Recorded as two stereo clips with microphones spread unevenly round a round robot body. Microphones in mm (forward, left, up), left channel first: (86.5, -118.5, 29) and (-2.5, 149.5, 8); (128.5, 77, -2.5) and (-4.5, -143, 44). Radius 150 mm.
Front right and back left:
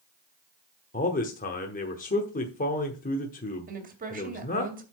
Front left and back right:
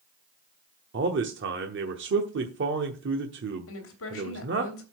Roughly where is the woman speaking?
Ahead left.